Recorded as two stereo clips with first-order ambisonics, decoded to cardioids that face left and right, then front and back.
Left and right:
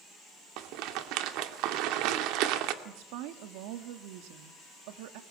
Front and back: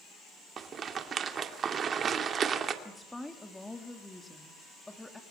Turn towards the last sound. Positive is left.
turn(degrees=-80)